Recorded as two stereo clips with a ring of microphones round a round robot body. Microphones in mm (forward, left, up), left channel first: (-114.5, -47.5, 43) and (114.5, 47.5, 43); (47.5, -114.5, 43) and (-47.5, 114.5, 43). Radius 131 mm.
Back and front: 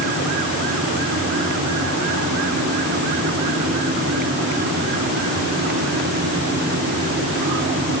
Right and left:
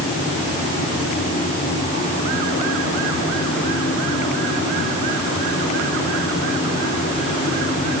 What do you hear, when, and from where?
Only background noise.